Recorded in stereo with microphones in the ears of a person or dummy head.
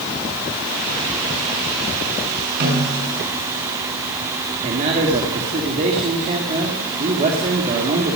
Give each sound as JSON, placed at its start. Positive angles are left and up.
{"t": 2.6, "sound": "a snare drum", "side_deg": -55, "distance_m": 7.5}
{"t": 4.6, "sound": "a man speaking", "side_deg": -40, "distance_m": 1.9}